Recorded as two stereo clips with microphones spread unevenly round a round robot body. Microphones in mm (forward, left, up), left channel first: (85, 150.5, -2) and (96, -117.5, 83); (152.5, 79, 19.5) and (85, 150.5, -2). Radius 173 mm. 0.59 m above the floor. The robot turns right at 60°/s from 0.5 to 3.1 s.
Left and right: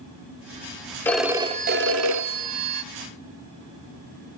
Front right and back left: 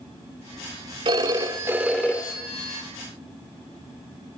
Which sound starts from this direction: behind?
A phone ringing, at 1.1 s.